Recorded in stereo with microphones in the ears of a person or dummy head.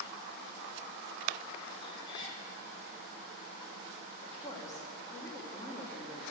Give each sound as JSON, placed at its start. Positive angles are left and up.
{"t": 1.8, "sound": "a cat meowing", "side_deg": 25, "distance_m": 3.0}
{"t": 4.2, "sound": "a woman speaking", "side_deg": 20, "distance_m": 3.0}